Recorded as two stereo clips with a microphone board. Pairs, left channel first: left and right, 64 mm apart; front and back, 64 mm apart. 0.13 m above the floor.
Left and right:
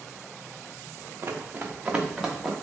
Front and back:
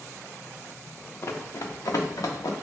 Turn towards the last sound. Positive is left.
turn(degrees=-5)